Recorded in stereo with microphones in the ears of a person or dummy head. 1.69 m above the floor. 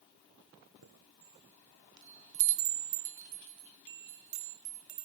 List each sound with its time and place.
0.8 s a chime: 65° right (ahead or behind), 1.4 m